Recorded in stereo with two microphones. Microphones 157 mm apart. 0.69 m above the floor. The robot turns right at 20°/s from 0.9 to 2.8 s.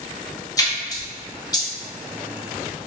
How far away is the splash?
About 0.7 m.